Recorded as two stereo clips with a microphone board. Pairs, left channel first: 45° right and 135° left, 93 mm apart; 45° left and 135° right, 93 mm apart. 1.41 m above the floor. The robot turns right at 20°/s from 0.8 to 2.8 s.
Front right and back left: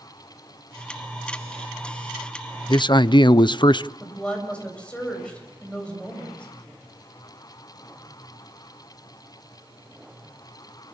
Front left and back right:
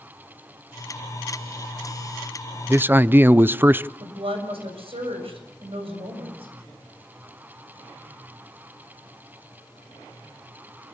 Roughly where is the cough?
No cough in this recording.